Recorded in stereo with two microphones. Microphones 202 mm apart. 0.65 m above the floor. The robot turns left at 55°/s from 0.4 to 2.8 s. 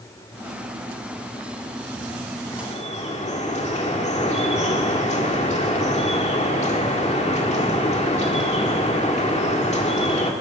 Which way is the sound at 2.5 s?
20° left (ahead or behind).